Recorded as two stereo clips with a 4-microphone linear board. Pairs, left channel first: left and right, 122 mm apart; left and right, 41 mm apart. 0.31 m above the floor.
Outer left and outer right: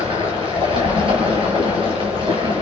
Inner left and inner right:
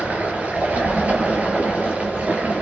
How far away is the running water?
About 4.5 m.